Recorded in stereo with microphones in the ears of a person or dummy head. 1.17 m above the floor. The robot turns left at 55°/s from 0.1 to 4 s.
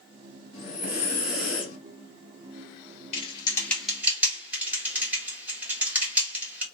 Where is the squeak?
No squeak in this recording.